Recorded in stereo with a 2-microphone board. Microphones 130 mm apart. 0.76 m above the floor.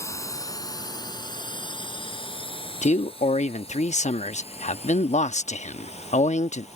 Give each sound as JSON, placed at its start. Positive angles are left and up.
{"t": 0.0, "sound": "a drone", "side_deg": 20}
{"t": 2.8, "sound": "a man speaking", "side_deg": 65}